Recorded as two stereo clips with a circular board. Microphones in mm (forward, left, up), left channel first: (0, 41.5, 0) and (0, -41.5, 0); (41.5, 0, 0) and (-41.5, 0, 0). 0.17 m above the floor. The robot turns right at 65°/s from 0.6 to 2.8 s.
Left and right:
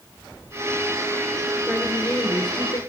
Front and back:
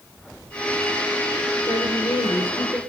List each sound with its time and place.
1.7 s a woman speaking: 20° right, 3 m; by 2.8 s 55° left, 3 m